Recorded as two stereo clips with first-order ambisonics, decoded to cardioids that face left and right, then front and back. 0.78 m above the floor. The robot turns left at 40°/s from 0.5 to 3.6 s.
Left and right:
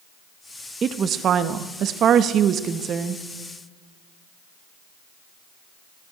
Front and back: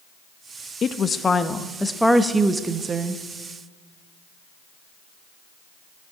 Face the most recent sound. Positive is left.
turn(degrees=-155)